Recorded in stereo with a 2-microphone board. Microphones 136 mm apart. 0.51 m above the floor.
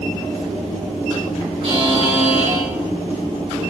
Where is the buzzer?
35° right (ahead or behind), 4 m.